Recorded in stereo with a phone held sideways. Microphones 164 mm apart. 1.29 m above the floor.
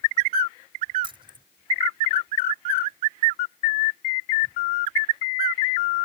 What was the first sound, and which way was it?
Keys jangling, 30° right (ahead or behind).